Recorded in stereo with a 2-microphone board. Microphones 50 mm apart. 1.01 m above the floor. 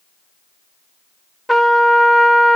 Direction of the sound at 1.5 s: Centre (ahead or behind).